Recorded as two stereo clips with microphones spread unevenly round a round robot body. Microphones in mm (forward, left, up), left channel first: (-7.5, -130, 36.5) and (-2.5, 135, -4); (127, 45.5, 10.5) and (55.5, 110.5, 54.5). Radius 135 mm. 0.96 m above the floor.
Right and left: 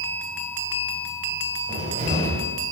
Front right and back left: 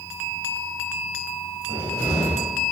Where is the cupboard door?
160° left, 1.8 m.